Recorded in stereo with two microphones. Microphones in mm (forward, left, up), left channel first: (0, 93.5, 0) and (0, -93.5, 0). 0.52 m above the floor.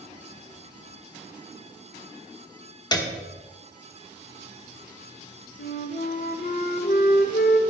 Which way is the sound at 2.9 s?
20° left (ahead or behind).